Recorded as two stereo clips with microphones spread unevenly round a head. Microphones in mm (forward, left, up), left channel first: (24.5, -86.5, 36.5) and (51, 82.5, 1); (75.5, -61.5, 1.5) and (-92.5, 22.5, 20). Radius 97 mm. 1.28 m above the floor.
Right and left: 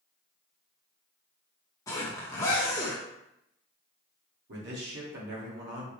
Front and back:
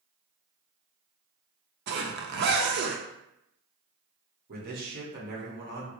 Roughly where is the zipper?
Behind.